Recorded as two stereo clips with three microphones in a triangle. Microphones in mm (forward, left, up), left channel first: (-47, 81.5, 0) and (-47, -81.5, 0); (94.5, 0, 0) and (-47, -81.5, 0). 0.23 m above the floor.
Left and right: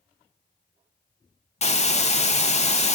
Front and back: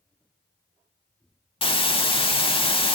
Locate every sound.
1.6 s a hiss: 70° left, 0.5 m